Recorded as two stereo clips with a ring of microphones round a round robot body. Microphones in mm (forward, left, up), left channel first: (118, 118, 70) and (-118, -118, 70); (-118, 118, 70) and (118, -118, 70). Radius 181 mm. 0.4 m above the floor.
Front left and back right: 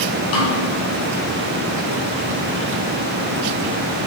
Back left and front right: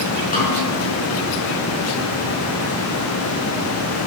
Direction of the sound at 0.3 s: 70° left.